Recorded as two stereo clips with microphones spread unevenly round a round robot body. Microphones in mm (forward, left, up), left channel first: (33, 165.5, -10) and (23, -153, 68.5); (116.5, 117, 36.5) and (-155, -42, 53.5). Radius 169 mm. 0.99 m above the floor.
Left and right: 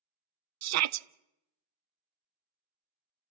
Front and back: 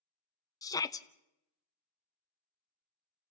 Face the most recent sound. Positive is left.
turn(degrees=-45)